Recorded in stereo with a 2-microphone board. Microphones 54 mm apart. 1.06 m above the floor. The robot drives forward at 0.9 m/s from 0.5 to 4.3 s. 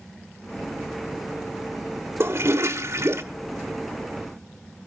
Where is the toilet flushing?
50° right (ahead or behind), 1.3 m; by 3.2 s 55° right (ahead or behind), 1.2 m.